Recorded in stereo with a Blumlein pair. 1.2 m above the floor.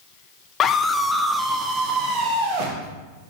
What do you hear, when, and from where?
0.6 s a scream: 30° left, 0.6 m; by 2.9 s 55° right, 1.1 m